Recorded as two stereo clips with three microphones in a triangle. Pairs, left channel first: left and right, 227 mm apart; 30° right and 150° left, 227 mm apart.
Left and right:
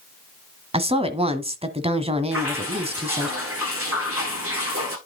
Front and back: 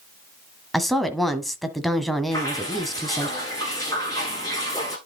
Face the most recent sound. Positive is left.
turn(degrees=-105)